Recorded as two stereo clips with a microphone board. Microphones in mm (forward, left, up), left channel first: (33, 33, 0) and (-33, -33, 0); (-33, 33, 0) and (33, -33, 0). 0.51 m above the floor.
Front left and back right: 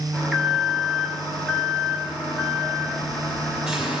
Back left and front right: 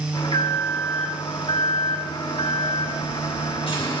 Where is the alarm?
140° left, 6 m.